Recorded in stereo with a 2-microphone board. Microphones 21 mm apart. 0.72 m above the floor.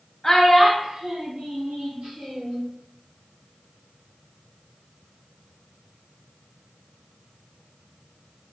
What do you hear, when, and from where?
0.2 s a child speaking: 20° left (ahead or behind), 0.7 m; by 2.6 s 70° right (ahead or behind), 1.6 m